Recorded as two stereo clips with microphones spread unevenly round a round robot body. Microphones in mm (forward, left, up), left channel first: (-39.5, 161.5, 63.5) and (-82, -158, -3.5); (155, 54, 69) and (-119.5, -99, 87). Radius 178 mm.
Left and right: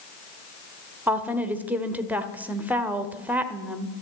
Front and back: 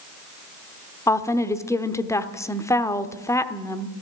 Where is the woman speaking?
40° right, 0.9 m.